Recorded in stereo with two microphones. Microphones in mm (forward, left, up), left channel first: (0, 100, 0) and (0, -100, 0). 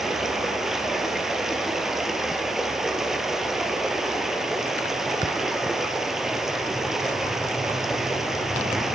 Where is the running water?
Centre (ahead or behind), 2.5 m.